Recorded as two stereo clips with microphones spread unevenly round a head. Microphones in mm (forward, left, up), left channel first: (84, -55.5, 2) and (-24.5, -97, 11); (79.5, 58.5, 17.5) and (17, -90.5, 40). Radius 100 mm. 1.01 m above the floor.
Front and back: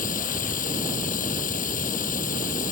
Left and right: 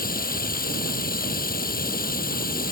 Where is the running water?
35° left.